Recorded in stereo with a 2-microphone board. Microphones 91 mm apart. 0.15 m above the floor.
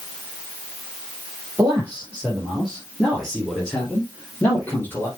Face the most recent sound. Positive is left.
turn(degrees=25)  # may be behind; listen again after turning